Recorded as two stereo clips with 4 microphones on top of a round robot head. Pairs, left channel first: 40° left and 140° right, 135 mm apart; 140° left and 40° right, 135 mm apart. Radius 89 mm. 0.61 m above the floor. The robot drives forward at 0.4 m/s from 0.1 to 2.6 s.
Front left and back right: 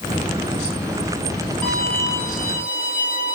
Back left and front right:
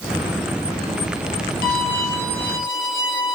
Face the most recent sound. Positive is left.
turn(degrees=130)